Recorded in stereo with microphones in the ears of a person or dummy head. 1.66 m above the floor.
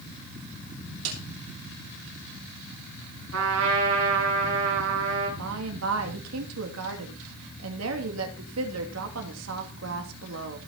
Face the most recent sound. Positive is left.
turn(degrees=-85)